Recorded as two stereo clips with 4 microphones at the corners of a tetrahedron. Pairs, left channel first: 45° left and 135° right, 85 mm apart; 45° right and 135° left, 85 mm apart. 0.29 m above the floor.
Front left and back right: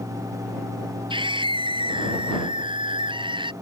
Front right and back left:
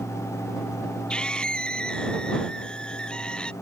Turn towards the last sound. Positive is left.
turn(degrees=-125)